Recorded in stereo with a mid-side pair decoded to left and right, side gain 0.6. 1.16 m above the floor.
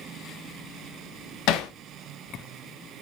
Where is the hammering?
70° left, 0.5 m.